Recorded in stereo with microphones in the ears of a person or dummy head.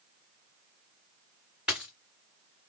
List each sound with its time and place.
1.7 s a dropped coin: 5° right (ahead or behind), 2.0 m